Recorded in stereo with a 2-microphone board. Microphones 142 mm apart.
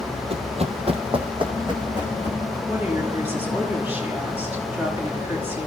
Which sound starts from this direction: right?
Running footsteps, at 0.3 s.